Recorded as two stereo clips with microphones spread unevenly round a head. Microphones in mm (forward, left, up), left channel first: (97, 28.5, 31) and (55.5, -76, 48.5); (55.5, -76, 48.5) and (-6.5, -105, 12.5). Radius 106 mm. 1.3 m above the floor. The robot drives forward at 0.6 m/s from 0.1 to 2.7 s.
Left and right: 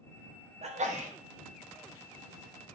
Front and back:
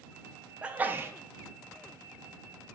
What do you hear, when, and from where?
0.6 s a sneeze: 85° right, 0.8 m; by 1.1 s 110° right, 0.8 m